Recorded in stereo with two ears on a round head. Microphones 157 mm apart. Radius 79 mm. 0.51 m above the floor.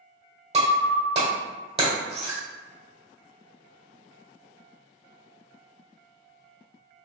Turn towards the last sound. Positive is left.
turn(degrees=-35)  # may be behind; listen again after turning